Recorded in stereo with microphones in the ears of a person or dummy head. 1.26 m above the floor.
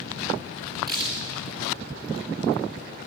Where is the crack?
25° right (ahead or behind), 2.5 m.